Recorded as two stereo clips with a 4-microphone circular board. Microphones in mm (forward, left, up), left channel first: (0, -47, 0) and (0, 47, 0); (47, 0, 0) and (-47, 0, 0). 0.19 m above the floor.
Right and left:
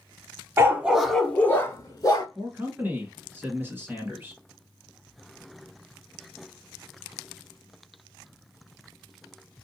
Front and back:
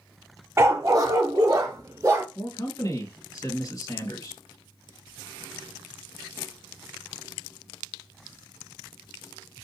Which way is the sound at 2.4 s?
30° left.